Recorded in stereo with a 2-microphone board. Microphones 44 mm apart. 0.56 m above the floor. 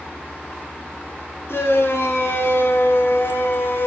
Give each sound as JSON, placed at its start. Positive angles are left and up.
{"t": 1.5, "sound": "a shout", "side_deg": 65, "distance_m": 6.0}